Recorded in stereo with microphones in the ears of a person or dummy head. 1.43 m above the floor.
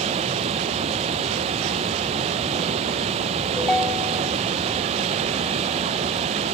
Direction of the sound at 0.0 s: 35° right (ahead or behind).